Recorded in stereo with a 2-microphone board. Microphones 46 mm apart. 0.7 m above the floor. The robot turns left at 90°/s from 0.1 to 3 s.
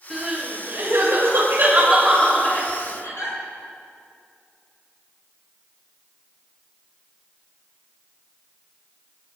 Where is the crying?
5° left (ahead or behind), 7.5 m; by 3.4 s 75° left (ahead or behind), 7.5 m.